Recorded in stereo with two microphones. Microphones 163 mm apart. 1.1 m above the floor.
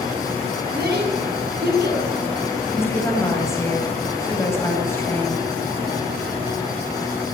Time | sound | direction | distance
0.7 | a child speaking | 85° right | 8 m
2.7 | a woman speaking | 15° left (ahead or behind) | 8 m